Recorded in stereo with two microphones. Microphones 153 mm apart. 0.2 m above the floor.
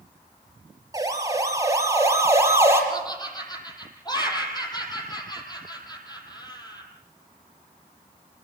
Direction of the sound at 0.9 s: 25° right (ahead or behind).